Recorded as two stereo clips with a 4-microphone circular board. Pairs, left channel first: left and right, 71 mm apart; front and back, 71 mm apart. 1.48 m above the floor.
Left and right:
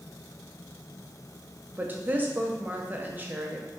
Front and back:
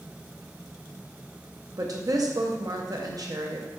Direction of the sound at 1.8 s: 155° right.